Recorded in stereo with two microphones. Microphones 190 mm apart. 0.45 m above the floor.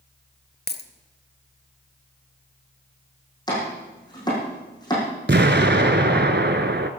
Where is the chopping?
20° left (ahead or behind), 6.5 m.